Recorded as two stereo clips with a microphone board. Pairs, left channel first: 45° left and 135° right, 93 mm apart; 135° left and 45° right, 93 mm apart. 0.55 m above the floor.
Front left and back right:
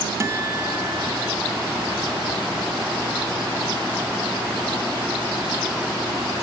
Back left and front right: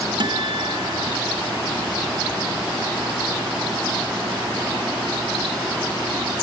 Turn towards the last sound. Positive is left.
turn(degrees=-80)